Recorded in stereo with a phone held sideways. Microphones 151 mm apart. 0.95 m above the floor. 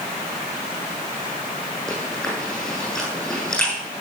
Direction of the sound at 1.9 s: 5° left (ahead or behind).